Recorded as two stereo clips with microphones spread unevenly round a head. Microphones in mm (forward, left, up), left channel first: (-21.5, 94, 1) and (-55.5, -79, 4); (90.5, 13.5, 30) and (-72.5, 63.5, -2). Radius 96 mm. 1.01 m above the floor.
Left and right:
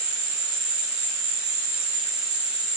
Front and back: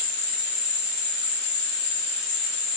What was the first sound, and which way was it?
An insect, 60° right.